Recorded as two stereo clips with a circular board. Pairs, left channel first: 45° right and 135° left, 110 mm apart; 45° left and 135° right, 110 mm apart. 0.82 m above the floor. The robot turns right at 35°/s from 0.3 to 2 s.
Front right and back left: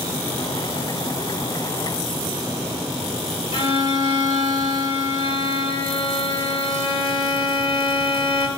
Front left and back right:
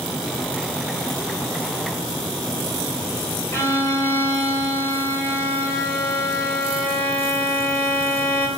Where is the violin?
15° right, 2 m.